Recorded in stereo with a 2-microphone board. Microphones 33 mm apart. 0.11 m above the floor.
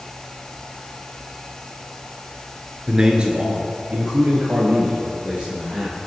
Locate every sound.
2.9 s a man speaking: 25° right (ahead or behind), 1.9 m; by 6.1 s 60° right (ahead or behind), 4.5 m